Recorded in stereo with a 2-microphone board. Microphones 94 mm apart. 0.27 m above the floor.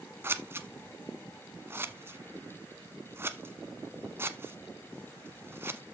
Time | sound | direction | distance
0.2 | scissors | 25° right (ahead or behind) | 1.0 m